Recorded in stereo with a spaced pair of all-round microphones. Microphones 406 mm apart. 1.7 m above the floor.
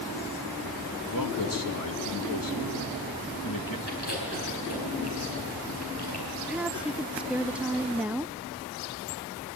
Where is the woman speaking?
5° right (ahead or behind), 0.5 m.